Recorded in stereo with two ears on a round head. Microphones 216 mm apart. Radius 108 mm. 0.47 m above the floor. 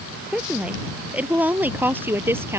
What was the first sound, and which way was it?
A woman speaking, 5° right (ahead or behind).